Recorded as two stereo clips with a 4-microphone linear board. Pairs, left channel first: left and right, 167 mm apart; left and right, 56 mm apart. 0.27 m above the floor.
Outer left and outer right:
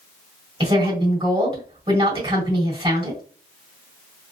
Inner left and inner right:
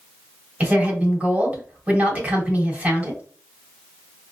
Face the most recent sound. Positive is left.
turn(degrees=-35)  # may be behind; listen again after turning